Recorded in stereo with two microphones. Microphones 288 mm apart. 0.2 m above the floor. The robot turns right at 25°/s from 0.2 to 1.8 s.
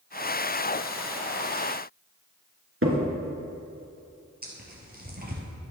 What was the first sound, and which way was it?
A crack, 50° right (ahead or behind).